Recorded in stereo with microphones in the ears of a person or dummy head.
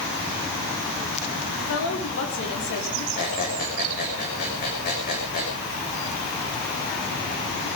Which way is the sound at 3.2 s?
50° left (ahead or behind).